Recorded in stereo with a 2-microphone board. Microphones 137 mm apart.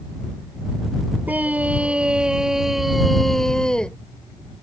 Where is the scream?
10° right (ahead or behind); by 4.0 s 5° left (ahead or behind).